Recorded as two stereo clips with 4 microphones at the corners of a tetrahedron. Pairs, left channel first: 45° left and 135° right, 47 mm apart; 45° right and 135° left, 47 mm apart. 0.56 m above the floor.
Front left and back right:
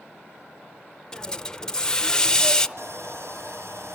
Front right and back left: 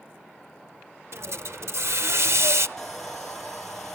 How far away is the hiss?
About 0.7 m.